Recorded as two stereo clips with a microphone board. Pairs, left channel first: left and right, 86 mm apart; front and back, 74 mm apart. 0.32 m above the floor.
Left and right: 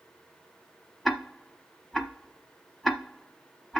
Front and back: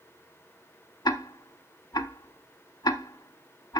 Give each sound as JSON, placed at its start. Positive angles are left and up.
{"t": 1.1, "sound": "ticking", "azimuth_deg": 0, "distance_m": 0.8}